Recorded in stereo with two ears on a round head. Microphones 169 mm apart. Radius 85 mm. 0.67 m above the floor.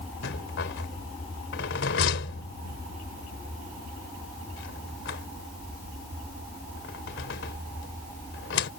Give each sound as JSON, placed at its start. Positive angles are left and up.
{"t": 0.2, "sound": "a rattle", "side_deg": 70}